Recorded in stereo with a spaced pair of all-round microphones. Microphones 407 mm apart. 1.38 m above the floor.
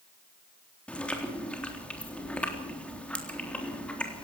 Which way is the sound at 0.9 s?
5° left (ahead or behind).